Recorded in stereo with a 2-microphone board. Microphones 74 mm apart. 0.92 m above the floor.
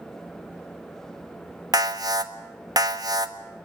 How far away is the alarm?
About 1.4 m.